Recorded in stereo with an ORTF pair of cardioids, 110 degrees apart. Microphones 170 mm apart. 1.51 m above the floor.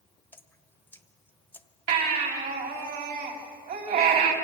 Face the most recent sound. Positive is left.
turn(degrees=-65)